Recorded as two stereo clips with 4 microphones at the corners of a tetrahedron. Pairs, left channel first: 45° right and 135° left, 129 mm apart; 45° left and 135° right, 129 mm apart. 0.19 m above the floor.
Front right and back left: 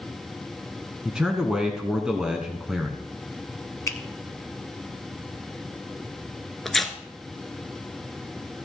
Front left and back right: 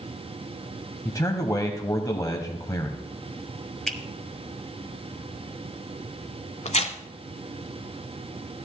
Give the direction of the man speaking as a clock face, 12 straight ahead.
10 o'clock.